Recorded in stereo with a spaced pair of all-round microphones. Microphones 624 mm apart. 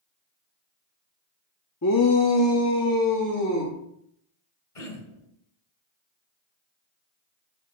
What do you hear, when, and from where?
1.8 s a shout: 25° left (ahead or behind), 0.8 m
4.8 s throat clearing: 65° left (ahead or behind), 1.9 m